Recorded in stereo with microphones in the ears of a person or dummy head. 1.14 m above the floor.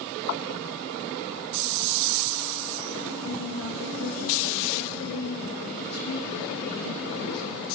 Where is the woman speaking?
80° left, 1.5 m.